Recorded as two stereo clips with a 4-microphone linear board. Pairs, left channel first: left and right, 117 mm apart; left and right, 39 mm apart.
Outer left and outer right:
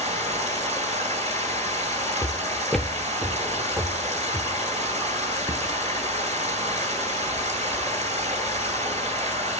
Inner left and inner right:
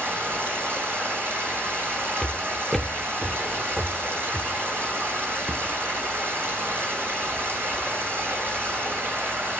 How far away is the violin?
I don't hear a violin.